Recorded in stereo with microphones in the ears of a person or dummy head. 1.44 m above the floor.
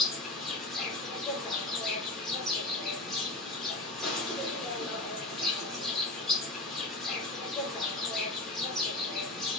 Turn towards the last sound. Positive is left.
turn(degrees=0)  # may be behind; listen again after turning